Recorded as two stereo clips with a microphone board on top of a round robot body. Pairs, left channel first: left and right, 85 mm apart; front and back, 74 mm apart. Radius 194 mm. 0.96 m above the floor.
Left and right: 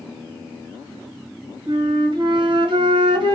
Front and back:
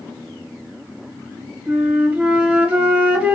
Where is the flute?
105° right, 1.3 m.